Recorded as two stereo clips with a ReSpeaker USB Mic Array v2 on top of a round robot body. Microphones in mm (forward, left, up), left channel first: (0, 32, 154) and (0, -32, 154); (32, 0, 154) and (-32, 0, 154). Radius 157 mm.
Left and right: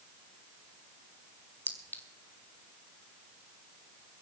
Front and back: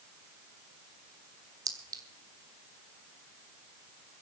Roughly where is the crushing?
No crushing in this recording.